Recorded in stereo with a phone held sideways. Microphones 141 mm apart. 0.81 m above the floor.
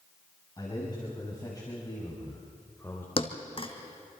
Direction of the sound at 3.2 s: 40° left (ahead or behind).